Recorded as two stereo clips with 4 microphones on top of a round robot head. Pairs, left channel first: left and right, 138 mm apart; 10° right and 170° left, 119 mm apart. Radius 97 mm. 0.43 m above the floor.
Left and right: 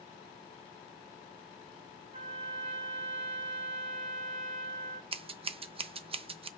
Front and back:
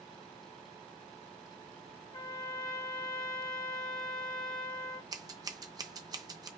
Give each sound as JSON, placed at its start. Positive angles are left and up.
{"t": 2.1, "sound": "a trumpet", "azimuth_deg": -55, "distance_m": 1.6}
{"t": 5.1, "sound": "scissors", "azimuth_deg": -135, "distance_m": 0.5}